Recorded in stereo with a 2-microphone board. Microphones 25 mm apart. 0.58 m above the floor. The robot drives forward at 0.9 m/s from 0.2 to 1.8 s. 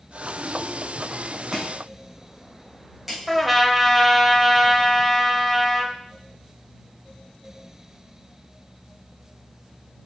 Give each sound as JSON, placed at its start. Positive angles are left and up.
{"t": 1.5, "sound": "chopping", "side_deg": -20, "distance_m": 2.5}
{"t": 3.3, "sound": "a trumpet", "side_deg": -5, "distance_m": 0.8}